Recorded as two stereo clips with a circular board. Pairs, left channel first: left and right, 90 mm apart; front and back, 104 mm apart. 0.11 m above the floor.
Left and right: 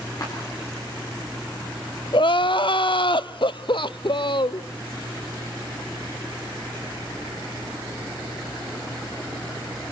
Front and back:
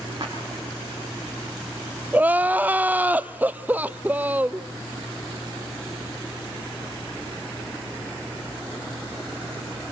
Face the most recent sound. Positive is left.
turn(degrees=105)